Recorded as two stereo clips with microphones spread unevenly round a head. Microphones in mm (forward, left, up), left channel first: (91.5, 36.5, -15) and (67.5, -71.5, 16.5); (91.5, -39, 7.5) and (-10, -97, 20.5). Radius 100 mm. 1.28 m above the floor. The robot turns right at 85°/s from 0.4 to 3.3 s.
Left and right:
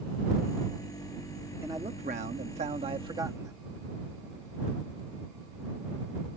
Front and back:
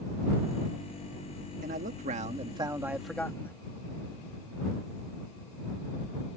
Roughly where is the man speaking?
Behind.